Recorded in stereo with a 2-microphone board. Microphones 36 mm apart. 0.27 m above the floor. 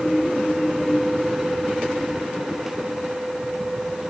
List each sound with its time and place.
Only background noise.